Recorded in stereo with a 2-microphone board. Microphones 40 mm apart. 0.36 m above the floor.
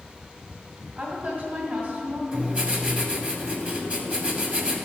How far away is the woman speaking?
About 2 m.